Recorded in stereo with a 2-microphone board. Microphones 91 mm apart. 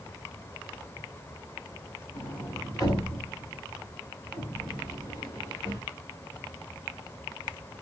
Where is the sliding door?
40° left (ahead or behind), 2.5 m.